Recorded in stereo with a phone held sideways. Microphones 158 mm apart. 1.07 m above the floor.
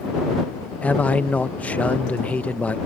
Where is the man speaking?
10° left (ahead or behind).